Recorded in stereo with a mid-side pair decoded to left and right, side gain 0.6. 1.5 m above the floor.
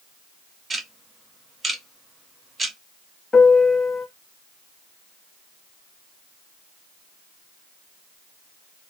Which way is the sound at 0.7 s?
25° right.